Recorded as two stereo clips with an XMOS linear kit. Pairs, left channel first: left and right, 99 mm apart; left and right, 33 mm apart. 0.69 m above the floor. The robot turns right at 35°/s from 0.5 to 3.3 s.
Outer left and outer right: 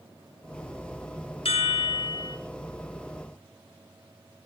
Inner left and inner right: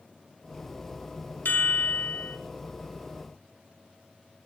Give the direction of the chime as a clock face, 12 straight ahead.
9 o'clock.